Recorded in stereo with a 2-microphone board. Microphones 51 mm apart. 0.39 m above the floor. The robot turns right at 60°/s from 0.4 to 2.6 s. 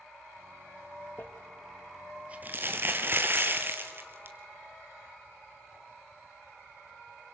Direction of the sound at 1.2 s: 40° left (ahead or behind).